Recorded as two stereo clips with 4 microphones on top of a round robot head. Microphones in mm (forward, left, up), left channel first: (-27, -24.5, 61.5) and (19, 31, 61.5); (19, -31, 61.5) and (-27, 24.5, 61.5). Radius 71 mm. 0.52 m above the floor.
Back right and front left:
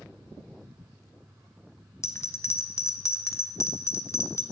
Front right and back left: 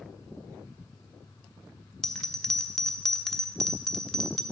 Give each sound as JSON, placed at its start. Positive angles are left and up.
{"t": 2.0, "sound": "a bell", "azimuth_deg": -130, "distance_m": 0.6}